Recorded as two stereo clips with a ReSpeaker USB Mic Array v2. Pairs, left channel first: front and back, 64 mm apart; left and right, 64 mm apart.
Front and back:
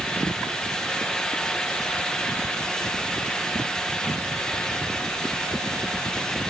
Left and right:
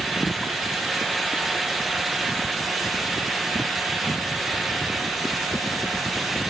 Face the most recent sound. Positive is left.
No sound to turn to.